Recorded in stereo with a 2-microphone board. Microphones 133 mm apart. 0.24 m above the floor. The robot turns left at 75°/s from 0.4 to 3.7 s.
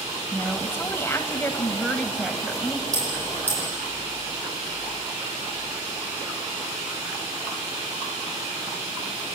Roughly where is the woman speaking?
Centre.